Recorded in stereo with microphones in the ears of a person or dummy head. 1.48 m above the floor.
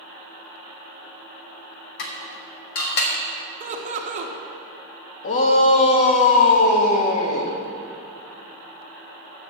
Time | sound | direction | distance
2.0 | dishes clattering | 60° left (ahead or behind) | 1.4 m
3.6 | laughter | 35° right (ahead or behind) | 1.6 m
5.2 | a shout | 45° left (ahead or behind) | 1.4 m